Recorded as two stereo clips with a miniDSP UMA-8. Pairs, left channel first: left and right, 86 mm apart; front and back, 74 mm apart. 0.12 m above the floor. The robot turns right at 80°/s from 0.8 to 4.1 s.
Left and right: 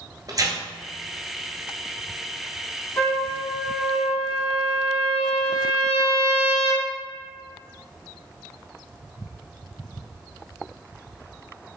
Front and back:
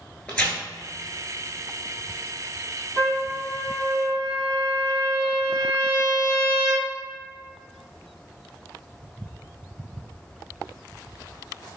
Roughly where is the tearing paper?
Right.